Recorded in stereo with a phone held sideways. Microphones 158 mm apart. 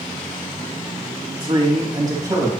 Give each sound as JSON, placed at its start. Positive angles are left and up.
{"t": 1.4, "sound": "a man speaking", "side_deg": -30, "distance_m": 3.0}